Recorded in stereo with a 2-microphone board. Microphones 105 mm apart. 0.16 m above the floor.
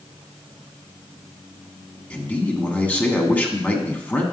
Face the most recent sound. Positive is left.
turn(degrees=15)  # may be behind; listen again after turning